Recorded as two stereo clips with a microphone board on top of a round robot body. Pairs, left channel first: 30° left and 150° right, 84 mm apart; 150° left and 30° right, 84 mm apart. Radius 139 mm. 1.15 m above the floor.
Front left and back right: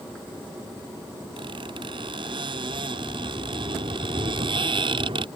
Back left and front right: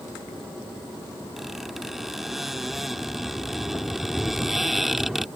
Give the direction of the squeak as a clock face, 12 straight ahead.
4 o'clock.